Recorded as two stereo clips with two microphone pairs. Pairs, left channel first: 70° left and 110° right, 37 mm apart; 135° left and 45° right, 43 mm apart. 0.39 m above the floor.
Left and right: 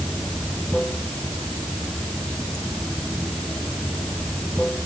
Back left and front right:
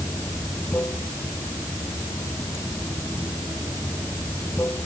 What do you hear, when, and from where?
0.0 s running water: 145° left